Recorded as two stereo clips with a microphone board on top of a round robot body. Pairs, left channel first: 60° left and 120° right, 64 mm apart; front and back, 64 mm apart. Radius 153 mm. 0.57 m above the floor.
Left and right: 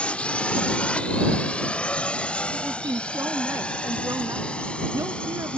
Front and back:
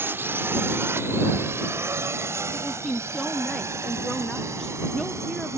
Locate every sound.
0.0 s a drone: 130° left; by 5.6 s 135° left
2.5 s a woman speaking: 85° right